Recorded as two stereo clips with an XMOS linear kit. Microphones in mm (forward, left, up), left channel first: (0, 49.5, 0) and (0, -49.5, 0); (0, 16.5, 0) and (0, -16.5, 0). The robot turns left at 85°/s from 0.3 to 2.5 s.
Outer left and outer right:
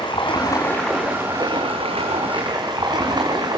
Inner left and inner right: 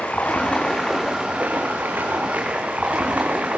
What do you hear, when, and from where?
0.0 s running water: 55° left, 6 m; by 3.6 s 135° right, 6 m